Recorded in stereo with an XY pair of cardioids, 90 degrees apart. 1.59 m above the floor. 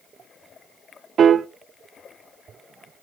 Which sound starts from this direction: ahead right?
A piano, at 1.2 s.